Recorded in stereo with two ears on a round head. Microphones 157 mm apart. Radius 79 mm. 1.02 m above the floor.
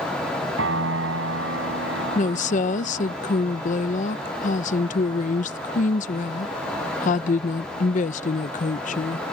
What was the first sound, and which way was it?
A piano, 90° right.